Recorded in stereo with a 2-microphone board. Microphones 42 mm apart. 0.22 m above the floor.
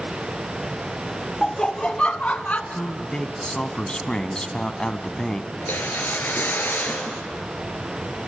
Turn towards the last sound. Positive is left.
turn(degrees=60)  # may be behind; listen again after turning